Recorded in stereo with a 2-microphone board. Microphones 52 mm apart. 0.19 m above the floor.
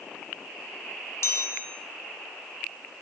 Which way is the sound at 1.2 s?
60° left (ahead or behind).